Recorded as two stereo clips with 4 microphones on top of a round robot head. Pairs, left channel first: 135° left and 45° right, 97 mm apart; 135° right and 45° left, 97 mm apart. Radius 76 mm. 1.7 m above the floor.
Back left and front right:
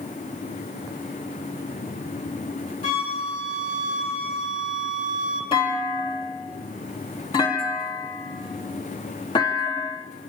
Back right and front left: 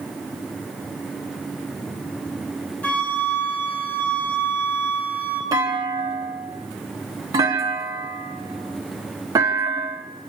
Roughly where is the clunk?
Left.